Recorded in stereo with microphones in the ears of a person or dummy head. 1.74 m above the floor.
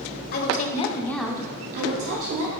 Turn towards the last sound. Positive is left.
turn(degrees=-75)  # may be behind; listen again after turning